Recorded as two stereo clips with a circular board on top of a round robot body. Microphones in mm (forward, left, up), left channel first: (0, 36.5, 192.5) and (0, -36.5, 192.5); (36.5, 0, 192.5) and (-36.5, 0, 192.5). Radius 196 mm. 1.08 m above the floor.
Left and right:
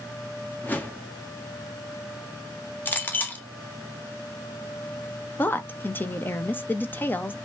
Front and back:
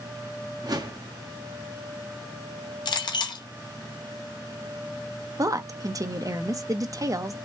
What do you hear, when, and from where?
0.6 s a whoosh: 155° left, 1.5 m
2.9 s a clink: 25° left, 0.8 m
5.4 s a woman speaking: 150° left, 1.0 m